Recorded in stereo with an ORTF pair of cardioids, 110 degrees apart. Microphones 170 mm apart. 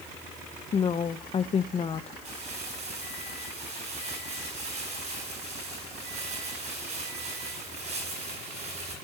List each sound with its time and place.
0.7 s a woman speaking: 35° left, 0.7 m
2.2 s crumpling: 40° right, 10 m